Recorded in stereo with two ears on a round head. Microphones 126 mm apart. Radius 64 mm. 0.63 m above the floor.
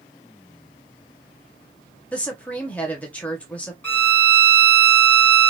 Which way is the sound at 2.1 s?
10° left (ahead or behind).